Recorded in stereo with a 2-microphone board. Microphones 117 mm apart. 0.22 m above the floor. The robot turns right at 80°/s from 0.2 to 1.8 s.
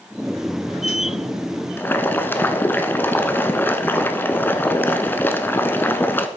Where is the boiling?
20° left (ahead or behind), 0.7 m; by 6.3 s 15° left (ahead or behind), 0.7 m.